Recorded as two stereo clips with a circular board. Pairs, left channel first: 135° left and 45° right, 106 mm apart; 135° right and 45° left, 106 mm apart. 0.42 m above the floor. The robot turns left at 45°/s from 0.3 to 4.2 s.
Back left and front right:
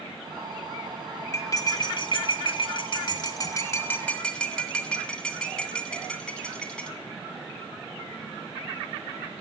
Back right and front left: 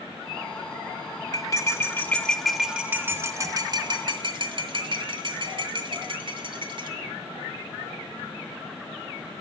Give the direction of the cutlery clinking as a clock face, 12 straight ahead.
6 o'clock.